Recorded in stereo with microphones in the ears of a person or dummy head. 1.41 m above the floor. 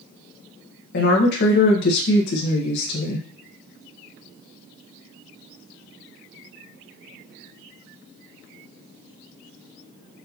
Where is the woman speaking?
55° left (ahead or behind), 1.2 m.